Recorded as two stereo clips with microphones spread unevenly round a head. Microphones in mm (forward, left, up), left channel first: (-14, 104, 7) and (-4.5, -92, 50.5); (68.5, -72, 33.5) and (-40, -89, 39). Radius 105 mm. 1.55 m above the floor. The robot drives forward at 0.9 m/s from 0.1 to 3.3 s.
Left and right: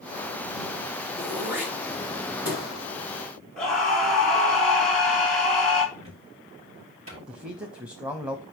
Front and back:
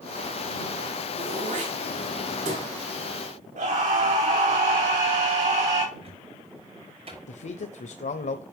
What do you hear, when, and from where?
1.2 s throat clearing: 165° right, 2.5 m; by 2.6 s 170° right, 4 m
3.6 s a scream: 175° right, 3.5 m
6.0 s a cupboard door: 145° right, 6 m
7.3 s a man speaking: straight ahead, 0.7 m